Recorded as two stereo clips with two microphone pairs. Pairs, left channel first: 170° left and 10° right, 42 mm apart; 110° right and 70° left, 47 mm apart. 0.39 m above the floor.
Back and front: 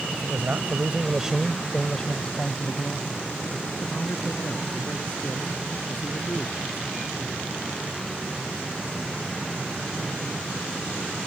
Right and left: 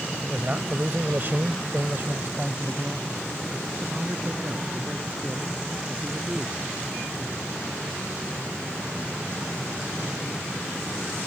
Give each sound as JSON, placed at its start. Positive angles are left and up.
{"t": 0.1, "sound": "a man speaking", "azimuth_deg": 0}